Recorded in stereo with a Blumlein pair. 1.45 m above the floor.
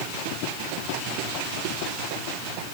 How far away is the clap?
No clap in this recording.